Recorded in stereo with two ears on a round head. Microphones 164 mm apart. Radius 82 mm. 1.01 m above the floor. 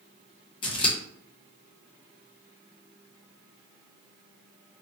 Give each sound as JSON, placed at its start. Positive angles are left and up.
{"t": 0.6, "sound": "scissors", "side_deg": 30, "distance_m": 0.6}